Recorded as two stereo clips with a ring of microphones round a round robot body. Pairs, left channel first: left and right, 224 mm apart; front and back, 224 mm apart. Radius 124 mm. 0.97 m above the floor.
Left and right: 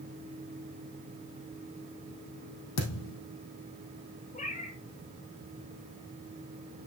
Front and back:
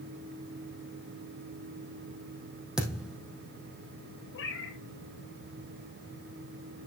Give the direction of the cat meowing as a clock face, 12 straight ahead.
11 o'clock.